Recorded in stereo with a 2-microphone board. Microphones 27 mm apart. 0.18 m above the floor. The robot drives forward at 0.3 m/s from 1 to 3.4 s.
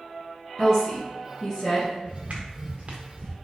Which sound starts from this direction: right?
Footsteps, at 2.0 s.